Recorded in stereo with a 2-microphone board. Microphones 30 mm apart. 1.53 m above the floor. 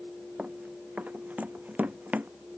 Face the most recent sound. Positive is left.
turn(degrees=-65)  # may be behind; listen again after turning